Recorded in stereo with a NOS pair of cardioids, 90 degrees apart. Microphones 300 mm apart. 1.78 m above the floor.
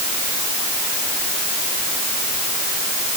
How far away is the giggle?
No giggle in this recording.